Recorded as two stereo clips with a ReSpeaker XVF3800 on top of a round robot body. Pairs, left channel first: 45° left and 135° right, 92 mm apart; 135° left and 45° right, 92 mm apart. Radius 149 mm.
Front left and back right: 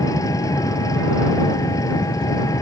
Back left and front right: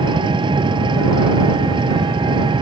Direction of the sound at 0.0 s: 10° right.